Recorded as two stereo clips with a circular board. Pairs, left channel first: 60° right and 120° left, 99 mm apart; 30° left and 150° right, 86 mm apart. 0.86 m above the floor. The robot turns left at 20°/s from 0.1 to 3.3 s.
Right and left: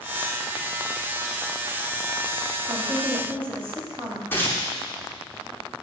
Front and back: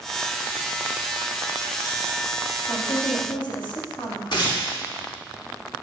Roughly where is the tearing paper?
Ahead.